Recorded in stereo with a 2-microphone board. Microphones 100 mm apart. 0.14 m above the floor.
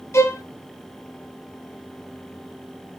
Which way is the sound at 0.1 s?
30° left (ahead or behind).